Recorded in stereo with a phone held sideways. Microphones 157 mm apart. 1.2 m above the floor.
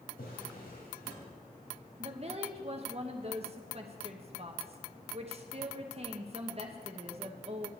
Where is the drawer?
85° left, 3.5 m.